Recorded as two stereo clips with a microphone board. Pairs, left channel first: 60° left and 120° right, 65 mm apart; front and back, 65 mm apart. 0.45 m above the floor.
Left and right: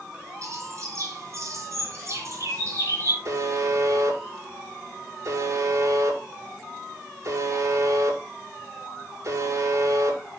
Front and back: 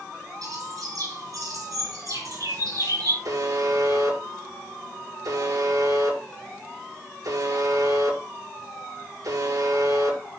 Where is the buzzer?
160° right, 6 m.